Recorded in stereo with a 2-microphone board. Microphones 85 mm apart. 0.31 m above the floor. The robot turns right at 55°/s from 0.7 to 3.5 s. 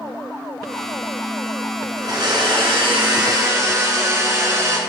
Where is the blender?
125° right, 3 m; by 4.8 s 40° right, 3 m.